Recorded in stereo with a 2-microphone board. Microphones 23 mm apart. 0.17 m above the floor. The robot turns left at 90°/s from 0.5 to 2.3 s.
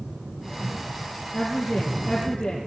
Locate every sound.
1.3 s a woman speaking: 125° left, 4 m; by 2.6 s 40° left, 4 m